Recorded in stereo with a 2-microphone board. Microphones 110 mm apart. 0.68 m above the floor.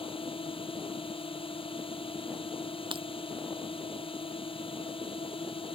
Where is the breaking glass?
50° right (ahead or behind).